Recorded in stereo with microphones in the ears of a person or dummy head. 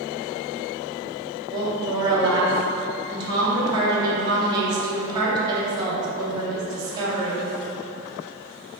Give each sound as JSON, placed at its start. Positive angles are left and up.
{"t": 1.5, "sound": "a woman speaking", "side_deg": -20, "distance_m": 1.0}